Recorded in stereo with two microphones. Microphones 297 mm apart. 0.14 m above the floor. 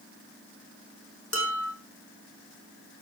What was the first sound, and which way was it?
Dishes clattering, 45° left (ahead or behind).